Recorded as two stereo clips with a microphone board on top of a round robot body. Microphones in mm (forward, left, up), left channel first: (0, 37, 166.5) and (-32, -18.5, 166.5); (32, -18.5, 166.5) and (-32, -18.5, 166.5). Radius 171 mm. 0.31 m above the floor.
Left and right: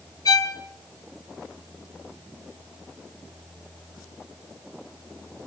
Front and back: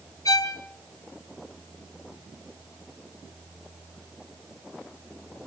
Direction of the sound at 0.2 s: 35° left.